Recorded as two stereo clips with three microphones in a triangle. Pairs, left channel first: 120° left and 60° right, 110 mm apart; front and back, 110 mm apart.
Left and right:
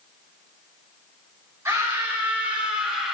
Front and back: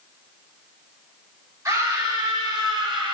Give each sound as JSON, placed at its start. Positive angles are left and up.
{"t": 1.6, "sound": "a scream", "azimuth_deg": -125, "distance_m": 3.5}